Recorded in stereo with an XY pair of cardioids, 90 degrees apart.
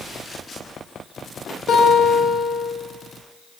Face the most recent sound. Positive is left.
turn(degrees=65)